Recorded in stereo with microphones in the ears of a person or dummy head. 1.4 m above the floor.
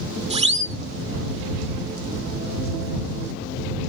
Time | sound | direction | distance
0.3 | a siren | 30° right (ahead or behind) | ?